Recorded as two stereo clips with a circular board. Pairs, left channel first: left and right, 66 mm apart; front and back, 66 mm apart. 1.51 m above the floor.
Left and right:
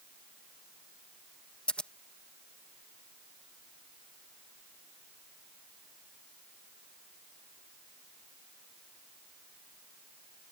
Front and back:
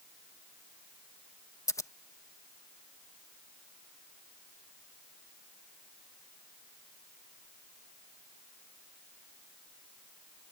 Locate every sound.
1.7 s scissors: 20° left